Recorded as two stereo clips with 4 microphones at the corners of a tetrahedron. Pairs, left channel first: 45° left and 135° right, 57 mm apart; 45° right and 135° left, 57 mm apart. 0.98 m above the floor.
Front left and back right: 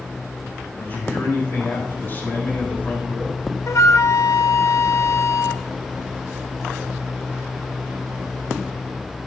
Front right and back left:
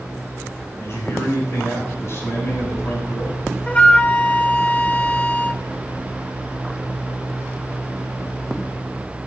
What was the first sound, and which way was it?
A man speaking, straight ahead.